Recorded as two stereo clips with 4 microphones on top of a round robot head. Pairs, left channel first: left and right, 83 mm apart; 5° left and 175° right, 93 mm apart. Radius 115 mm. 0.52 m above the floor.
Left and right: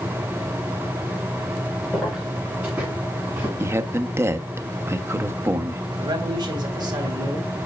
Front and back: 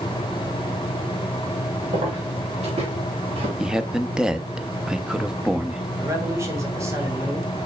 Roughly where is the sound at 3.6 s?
Right.